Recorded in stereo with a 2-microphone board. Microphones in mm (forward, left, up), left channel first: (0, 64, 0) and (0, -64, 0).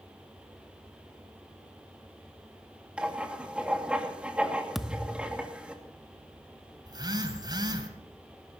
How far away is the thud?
About 0.8 m.